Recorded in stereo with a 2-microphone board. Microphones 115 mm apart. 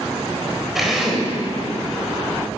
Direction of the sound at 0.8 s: Centre (ahead or behind).